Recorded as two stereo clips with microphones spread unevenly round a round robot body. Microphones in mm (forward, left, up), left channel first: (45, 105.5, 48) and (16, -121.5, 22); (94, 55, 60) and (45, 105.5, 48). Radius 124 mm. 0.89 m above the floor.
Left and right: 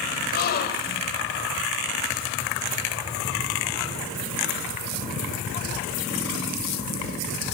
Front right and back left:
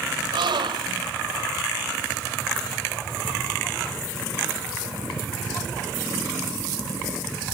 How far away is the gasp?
About 3 m.